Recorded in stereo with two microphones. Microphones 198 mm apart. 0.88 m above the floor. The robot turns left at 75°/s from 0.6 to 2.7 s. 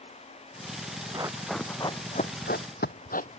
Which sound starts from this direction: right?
Running footsteps, at 1.1 s.